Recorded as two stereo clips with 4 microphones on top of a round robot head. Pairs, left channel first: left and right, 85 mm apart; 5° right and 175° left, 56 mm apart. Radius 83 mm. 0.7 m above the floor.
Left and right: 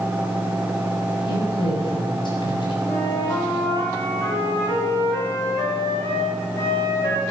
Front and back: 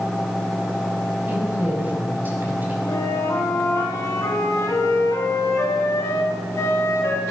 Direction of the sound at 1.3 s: 120° left.